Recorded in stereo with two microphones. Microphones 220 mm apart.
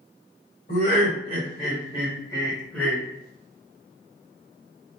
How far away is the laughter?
About 1.8 m.